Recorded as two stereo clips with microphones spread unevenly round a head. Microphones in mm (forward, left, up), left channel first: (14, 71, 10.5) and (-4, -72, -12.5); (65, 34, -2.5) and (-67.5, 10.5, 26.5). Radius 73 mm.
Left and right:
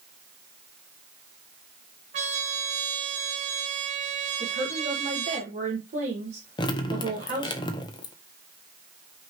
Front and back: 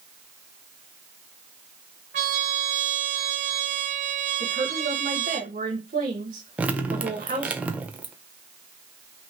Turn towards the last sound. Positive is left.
turn(degrees=125)